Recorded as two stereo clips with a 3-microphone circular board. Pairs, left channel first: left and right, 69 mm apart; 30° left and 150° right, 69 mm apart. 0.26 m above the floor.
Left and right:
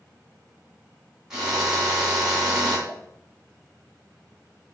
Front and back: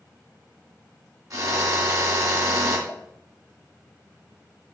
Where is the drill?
170° right, 2.5 m.